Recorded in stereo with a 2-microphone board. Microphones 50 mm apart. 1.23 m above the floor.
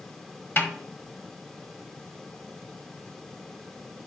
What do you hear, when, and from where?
0.6 s a snare drum: 50° left (ahead or behind), 1.4 m